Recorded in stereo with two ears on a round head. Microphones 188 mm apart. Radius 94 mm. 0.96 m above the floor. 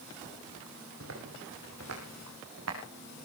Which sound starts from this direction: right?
Footsteps, at 1.0 s.